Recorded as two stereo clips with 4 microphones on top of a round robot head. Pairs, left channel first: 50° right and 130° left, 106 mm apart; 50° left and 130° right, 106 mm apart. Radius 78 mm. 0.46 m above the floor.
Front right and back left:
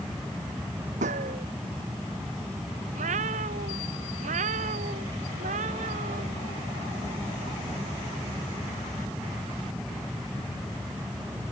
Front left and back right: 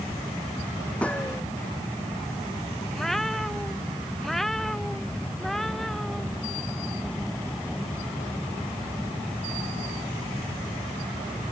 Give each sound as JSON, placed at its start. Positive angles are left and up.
{"t": 1.0, "sound": "a gunshot", "azimuth_deg": 125}
{"t": 2.9, "sound": "a cat meowing", "azimuth_deg": 135}